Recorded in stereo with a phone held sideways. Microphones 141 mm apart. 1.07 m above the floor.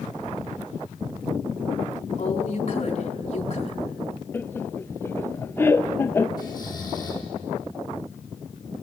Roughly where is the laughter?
Centre.